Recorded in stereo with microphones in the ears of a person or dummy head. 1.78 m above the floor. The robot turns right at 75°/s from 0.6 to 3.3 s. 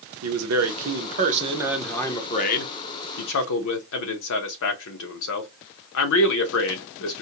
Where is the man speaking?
90° right, 0.9 m; by 7.2 s 110° left, 0.9 m.